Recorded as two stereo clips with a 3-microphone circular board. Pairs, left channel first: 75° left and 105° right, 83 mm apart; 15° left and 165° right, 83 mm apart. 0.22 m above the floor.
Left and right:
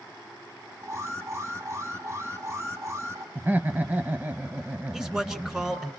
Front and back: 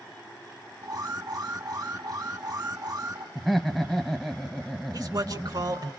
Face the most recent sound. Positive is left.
turn(degrees=170)